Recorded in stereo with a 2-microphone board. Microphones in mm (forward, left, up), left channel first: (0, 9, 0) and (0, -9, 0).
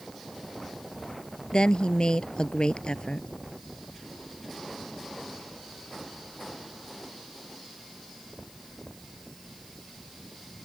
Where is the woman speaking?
65° left (ahead or behind).